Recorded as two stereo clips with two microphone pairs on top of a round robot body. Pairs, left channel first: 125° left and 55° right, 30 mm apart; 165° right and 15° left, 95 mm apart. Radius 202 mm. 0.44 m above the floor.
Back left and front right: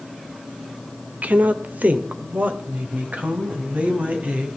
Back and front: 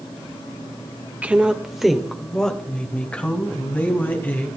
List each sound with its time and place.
1.2 s a woman speaking: 60° right, 1.6 m; by 4.5 s 90° right, 4.5 m